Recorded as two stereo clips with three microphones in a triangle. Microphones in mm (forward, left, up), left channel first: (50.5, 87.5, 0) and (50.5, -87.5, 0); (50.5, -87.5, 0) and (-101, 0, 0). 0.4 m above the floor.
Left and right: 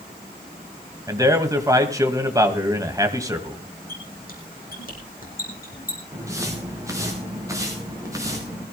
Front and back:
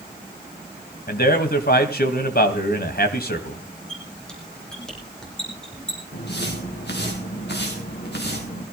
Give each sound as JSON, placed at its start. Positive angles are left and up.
{"t": 1.1, "sound": "a man speaking", "azimuth_deg": -20, "distance_m": 2.5}
{"t": 3.9, "sound": "a squeak", "azimuth_deg": 55, "distance_m": 4.5}
{"t": 6.1, "sound": "footsteps", "azimuth_deg": -15, "distance_m": 5.0}